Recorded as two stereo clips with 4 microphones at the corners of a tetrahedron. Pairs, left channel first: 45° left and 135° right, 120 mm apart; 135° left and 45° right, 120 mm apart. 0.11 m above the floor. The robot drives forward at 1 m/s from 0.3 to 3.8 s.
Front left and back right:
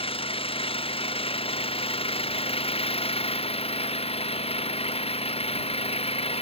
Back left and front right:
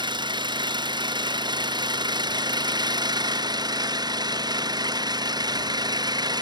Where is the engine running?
5° left; by 6.4 s 10° left.